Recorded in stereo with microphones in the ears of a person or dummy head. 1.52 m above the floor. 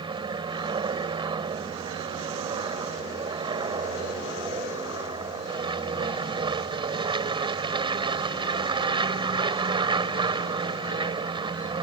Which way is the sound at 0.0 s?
20° right (ahead or behind).